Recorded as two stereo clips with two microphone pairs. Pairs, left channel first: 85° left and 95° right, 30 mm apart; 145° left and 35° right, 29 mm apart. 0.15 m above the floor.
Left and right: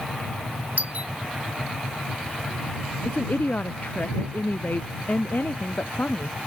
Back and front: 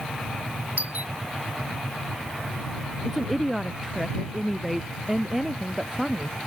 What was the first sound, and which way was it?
A doorbell, 55° right.